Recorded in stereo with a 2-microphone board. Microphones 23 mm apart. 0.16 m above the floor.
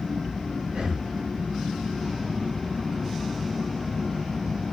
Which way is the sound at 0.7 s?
65° right (ahead or behind).